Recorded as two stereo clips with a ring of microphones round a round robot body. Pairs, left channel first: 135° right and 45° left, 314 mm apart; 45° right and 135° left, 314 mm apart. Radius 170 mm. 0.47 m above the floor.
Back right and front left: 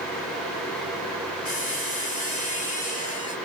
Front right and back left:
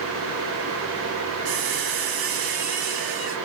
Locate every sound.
1.4 s a squeak: 155° left, 4 m